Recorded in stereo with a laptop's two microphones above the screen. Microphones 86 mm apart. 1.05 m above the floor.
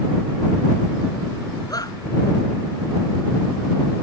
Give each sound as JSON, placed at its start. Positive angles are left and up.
{"t": 1.7, "sound": "a shout", "side_deg": 45}